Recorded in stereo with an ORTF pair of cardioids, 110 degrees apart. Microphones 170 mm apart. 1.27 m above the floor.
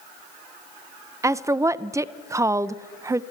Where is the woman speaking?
15° right, 0.6 m.